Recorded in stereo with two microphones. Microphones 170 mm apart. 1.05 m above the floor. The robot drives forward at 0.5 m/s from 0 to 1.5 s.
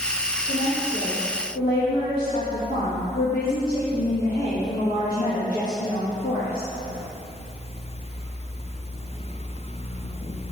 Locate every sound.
0.5 s a woman speaking: 65° left (ahead or behind), 1.5 m; by 6.7 s 70° left (ahead or behind), 1.4 m